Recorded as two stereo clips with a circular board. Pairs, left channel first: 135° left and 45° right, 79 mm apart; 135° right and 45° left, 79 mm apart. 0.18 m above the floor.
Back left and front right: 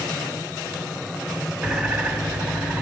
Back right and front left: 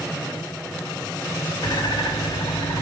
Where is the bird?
120° right, 1.3 m.